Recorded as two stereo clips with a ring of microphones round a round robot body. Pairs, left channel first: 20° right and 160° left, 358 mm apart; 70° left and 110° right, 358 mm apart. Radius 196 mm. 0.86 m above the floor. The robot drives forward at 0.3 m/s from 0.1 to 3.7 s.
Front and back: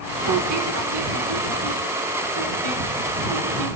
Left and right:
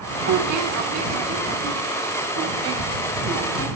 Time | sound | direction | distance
0.2 | a squeak | 155° right | 1.0 m